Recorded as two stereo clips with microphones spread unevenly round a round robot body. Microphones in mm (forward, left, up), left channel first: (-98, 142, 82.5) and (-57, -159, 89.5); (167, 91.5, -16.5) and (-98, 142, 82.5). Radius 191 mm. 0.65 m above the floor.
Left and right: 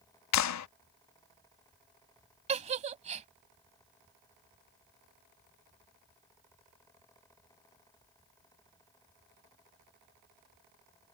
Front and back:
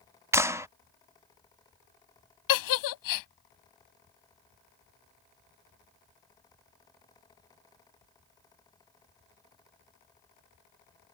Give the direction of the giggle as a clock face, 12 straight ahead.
12 o'clock.